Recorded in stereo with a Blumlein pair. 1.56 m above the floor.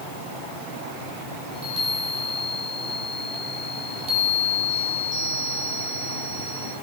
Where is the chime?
25° right, 4 m.